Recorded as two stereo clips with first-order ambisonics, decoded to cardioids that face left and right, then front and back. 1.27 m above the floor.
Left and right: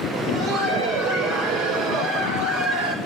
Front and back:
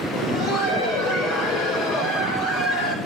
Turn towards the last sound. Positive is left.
turn(degrees=-40)